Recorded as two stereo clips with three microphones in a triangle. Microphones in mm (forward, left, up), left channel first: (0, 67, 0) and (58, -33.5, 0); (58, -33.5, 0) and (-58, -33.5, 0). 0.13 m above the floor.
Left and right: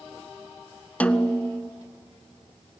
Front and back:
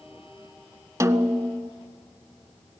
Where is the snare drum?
175° right, 0.6 m.